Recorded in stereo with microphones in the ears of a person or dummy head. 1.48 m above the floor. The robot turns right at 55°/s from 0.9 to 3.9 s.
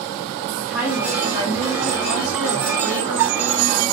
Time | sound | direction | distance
0.6 | a woman speaking | 170° right | 2.5 m